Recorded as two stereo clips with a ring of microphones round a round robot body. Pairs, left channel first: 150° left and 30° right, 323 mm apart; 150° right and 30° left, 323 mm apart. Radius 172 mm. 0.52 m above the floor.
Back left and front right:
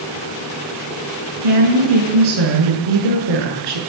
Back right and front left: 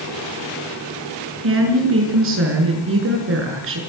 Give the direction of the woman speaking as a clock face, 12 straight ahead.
1 o'clock.